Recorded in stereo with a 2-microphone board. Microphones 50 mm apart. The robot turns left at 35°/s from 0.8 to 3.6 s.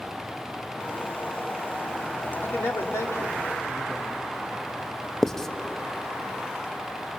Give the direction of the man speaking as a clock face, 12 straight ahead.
8 o'clock.